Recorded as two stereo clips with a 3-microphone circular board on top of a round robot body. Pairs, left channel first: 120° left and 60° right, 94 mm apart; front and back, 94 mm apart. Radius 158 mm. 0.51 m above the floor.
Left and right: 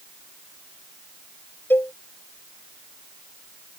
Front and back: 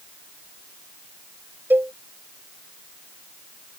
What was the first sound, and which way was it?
A cowbell, 150° left.